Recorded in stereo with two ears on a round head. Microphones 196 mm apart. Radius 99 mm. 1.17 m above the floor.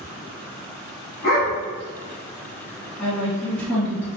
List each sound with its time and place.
1.2 s a dog barking: 45° left (ahead or behind), 1.3 m
3.0 s a woman speaking: 5° left (ahead or behind), 1.6 m